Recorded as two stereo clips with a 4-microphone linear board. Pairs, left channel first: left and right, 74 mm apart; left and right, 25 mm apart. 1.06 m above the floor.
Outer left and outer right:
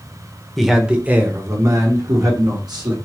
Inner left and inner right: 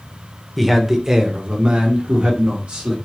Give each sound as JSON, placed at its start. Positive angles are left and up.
{"t": 0.6, "sound": "a man speaking", "side_deg": 0, "distance_m": 0.9}